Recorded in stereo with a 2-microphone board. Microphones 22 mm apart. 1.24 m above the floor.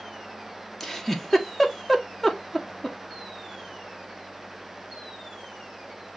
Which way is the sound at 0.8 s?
15° left (ahead or behind).